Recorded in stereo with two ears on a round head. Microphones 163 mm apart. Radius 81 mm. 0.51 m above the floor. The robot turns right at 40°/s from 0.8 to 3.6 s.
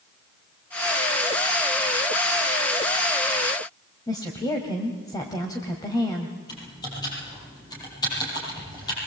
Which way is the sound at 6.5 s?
20° left (ahead or behind).